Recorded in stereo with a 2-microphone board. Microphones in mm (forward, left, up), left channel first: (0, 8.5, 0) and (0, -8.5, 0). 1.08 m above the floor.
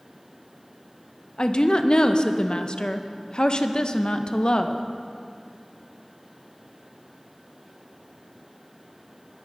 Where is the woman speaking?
50° left (ahead or behind), 0.7 m.